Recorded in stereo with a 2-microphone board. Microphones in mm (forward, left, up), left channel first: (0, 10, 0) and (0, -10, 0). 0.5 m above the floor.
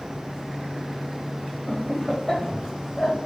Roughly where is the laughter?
Centre.